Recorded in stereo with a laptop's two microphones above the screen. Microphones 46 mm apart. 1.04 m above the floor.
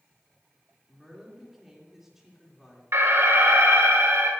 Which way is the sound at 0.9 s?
10° right (ahead or behind).